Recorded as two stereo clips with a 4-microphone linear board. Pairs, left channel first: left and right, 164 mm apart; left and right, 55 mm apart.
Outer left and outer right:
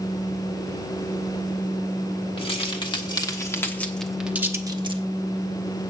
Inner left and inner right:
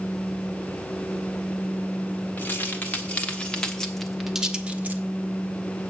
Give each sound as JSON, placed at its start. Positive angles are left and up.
{"t": 2.4, "sound": "keys jangling", "side_deg": 35, "distance_m": 1.8}